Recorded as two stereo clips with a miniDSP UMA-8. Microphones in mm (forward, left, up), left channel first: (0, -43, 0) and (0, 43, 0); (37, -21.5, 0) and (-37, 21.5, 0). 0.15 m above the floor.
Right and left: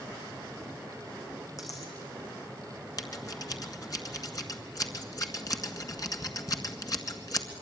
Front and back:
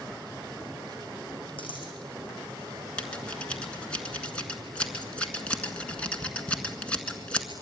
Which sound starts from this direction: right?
Scissors, at 3.0 s.